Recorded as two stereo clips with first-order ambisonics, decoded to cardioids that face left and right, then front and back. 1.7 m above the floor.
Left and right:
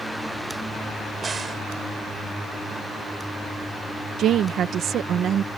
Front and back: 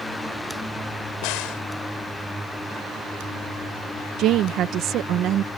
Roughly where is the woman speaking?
Behind right.